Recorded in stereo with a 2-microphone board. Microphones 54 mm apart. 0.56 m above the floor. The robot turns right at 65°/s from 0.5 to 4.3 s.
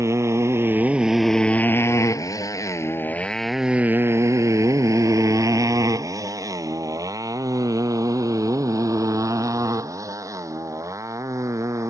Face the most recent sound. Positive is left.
turn(degrees=-65)  # may be behind; listen again after turning